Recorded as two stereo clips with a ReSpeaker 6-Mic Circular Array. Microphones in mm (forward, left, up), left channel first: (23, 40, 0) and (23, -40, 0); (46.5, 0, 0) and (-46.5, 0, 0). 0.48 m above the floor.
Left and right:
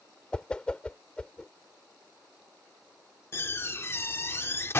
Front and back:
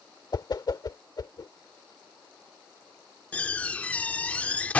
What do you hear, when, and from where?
0.3 s a whoosh: 15° left
3.3 s a door slam: 65° left